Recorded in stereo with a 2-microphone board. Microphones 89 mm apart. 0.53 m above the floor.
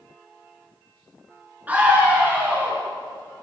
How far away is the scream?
About 9 m.